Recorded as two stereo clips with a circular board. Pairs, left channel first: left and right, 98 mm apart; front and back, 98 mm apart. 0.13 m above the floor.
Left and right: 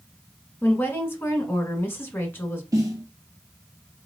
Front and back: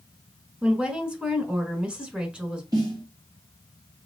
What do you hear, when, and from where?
0.6 s a woman speaking: 115° left, 1.1 m
2.7 s a snare drum: 140° right, 2 m